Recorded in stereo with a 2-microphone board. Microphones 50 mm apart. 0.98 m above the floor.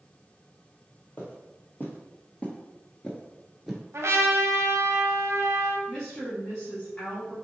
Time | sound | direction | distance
1.2 | footsteps | 35° left (ahead or behind) | 1.6 m
3.9 | a trumpet | 60° right (ahead or behind) | 0.9 m
5.9 | a woman speaking | 25° left (ahead or behind) | 1.4 m